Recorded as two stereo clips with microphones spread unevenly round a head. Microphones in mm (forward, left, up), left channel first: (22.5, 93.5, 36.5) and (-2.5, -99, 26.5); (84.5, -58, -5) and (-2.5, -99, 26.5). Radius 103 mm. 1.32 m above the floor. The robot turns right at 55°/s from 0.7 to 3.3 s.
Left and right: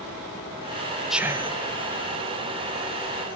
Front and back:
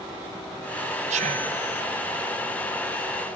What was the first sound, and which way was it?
Whispering, 175° left.